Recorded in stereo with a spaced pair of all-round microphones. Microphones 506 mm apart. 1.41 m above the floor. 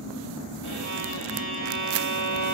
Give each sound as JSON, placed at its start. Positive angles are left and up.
{"t": 0.6, "sound": "a violin", "side_deg": -65, "distance_m": 4.0}